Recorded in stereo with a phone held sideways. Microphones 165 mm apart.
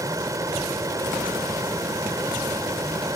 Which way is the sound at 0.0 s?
20° right (ahead or behind).